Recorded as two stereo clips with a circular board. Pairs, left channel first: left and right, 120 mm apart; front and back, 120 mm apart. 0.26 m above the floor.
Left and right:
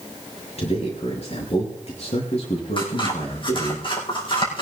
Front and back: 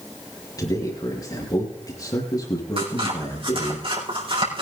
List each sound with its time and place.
0.6 s a man speaking: 60° left, 5 m
2.8 s scissors: 135° left, 6.5 m